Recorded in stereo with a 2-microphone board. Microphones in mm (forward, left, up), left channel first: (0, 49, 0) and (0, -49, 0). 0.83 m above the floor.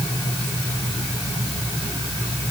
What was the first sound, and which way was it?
Only background noise.